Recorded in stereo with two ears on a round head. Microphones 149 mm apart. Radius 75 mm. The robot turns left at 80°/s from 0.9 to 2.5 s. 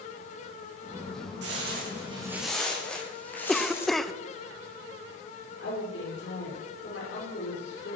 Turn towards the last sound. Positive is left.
turn(degrees=85)